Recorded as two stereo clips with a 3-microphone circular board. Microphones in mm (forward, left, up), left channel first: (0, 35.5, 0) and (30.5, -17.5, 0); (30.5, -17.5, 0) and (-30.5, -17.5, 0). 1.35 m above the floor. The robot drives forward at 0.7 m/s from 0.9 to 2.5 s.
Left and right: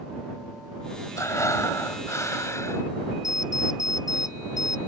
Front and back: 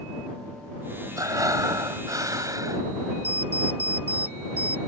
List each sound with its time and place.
1.2 s breathing: 155° left
3.2 s an alarm clock: 120° left